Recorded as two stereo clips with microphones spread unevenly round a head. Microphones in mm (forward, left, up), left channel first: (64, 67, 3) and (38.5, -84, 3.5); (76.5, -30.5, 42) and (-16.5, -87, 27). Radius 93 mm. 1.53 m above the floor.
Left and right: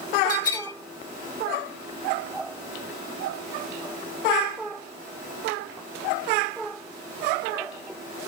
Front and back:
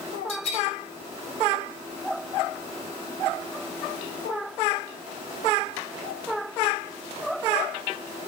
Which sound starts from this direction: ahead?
A bell, at 0.3 s.